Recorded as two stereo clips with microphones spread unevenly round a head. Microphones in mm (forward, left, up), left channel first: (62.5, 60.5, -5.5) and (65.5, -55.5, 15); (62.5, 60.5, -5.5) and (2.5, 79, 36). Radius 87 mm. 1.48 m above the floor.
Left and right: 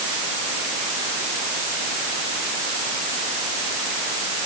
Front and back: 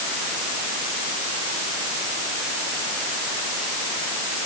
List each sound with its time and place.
Only background noise.